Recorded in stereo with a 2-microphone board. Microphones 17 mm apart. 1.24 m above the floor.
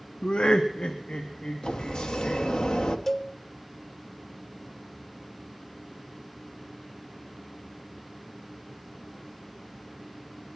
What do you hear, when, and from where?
0.2 s laughter: 65° left (ahead or behind), 0.5 m; by 2.5 s 70° left (ahead or behind), 2.5 m
1.6 s a sliding door: 60° left (ahead or behind), 1.0 m
3.1 s a cowbell: 15° left (ahead or behind), 0.8 m